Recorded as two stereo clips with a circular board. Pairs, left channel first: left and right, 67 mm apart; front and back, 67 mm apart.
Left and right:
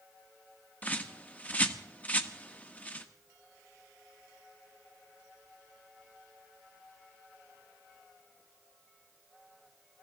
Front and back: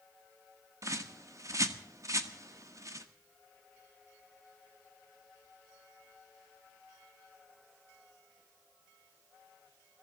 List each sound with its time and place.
0.8 s a bird: 155° left, 1.3 m